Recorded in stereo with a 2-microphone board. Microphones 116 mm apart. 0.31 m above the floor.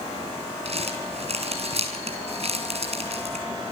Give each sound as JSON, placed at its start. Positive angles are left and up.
{"t": 0.7, "sound": "crumpling", "side_deg": -60, "distance_m": 7.5}